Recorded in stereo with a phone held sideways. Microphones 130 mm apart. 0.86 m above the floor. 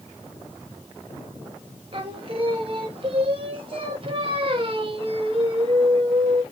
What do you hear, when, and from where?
1.9 s singing: 40° right (ahead or behind), 0.7 m